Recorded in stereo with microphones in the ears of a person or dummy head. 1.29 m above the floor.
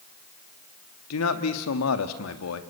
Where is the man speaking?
85° left, 1.9 m.